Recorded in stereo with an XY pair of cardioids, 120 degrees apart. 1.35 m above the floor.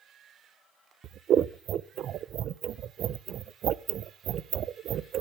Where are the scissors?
55° right, 0.6 m.